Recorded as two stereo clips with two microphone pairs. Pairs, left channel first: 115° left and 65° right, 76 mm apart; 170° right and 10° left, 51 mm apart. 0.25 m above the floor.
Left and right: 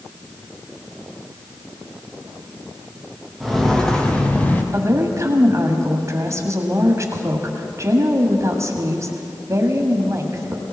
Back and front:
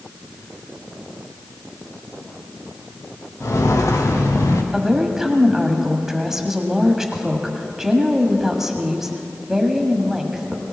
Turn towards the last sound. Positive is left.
turn(degrees=-70)